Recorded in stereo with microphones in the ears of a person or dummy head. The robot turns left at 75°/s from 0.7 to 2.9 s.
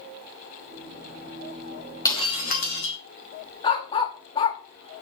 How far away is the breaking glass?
About 2.5 m.